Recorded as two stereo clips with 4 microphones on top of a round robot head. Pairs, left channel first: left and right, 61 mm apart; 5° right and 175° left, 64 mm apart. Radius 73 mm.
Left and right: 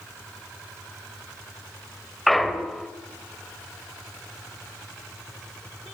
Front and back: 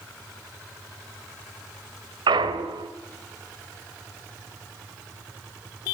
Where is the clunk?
Straight behind, 1.6 m.